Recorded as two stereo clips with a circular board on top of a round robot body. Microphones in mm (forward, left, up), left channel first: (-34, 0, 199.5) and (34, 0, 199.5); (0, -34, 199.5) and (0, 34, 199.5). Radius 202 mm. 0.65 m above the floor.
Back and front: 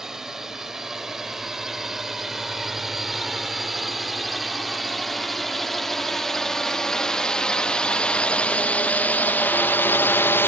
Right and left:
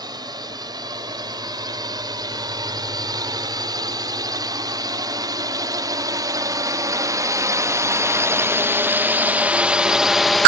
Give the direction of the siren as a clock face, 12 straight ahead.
I don't hear a siren.